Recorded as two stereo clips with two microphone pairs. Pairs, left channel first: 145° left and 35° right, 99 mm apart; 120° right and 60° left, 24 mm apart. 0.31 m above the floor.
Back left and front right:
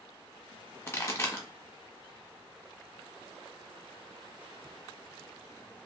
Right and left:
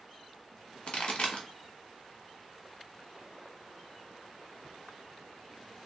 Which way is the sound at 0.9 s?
150° right.